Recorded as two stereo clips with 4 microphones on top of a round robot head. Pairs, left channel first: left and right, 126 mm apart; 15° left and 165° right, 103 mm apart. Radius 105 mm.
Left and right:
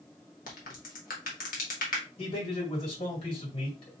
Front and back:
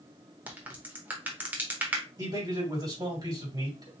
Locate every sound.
0.5 s a crack: 120° left, 0.9 m
2.2 s a man speaking: 145° left, 2.5 m